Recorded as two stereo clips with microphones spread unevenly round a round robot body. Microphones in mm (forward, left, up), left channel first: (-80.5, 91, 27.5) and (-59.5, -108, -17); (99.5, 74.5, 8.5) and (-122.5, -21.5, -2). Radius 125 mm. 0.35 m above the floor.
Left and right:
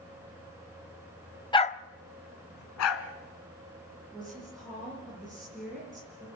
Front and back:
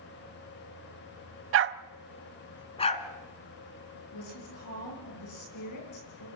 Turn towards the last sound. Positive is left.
turn(degrees=5)